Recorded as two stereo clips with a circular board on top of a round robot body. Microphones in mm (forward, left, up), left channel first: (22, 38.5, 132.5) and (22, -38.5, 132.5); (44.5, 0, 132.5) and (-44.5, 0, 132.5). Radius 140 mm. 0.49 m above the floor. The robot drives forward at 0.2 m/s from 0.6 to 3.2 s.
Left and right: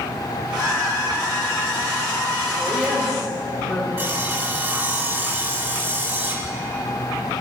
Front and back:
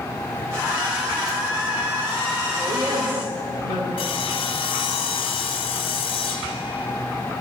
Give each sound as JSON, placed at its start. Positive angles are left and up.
{"t": 2.6, "sound": "a woman speaking", "azimuth_deg": 180, "distance_m": 2.0}
{"t": 4.0, "sound": "sawing", "azimuth_deg": -30, "distance_m": 0.5}